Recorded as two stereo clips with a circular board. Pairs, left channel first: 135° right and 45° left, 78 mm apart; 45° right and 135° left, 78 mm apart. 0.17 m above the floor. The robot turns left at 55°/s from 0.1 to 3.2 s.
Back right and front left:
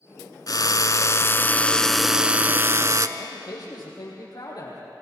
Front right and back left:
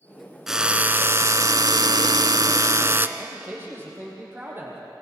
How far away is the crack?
I don't hear a crack.